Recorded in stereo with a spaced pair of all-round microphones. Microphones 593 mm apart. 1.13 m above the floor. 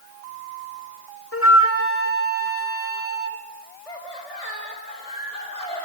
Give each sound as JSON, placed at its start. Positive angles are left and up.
{"t": 1.3, "sound": "a flute", "side_deg": 20, "distance_m": 1.6}
{"t": 3.9, "sound": "laughter", "side_deg": 75, "distance_m": 5.0}